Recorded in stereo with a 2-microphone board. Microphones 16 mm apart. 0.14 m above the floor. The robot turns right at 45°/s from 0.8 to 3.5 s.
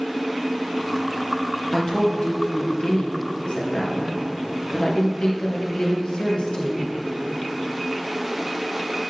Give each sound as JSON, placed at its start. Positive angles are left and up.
{"t": 1.7, "sound": "a woman speaking", "azimuth_deg": 20, "distance_m": 2.5}